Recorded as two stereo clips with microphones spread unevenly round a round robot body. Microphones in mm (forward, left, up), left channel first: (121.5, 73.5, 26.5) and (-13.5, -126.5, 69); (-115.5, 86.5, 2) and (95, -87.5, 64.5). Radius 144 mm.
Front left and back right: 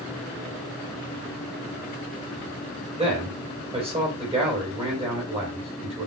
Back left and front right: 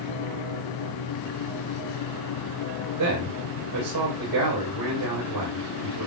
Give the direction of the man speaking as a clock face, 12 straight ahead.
2 o'clock.